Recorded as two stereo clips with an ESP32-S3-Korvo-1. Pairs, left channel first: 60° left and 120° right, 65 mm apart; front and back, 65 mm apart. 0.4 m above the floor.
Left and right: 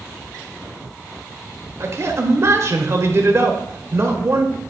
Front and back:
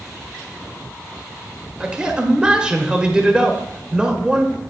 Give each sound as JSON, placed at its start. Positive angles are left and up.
{"t": 1.8, "sound": "a man speaking", "azimuth_deg": -105, "distance_m": 1.2}